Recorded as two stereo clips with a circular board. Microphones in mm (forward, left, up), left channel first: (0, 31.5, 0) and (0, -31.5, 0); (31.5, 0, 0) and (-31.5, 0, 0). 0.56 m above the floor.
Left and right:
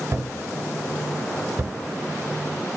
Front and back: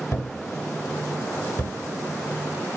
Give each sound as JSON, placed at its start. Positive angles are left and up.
{"t": 0.1, "sound": "a thud", "azimuth_deg": -40, "distance_m": 1.2}